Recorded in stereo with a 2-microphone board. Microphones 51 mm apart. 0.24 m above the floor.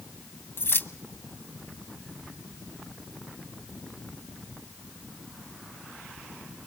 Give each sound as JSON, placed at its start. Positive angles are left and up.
{"t": 0.6, "sound": "keys jangling", "side_deg": 45, "distance_m": 1.1}